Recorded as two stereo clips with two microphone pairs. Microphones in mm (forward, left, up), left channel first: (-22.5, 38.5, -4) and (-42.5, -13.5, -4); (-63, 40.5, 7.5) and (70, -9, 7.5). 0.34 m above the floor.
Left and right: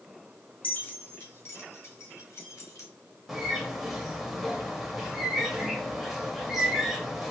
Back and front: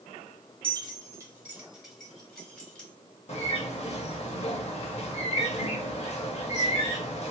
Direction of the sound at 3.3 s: 165° left.